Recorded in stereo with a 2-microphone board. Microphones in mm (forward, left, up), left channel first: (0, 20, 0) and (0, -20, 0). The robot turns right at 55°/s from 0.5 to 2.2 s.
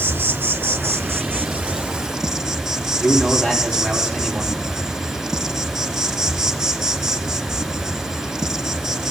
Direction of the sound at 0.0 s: 105° right.